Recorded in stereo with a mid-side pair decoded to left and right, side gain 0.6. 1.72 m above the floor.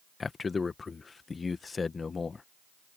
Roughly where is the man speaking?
Ahead left.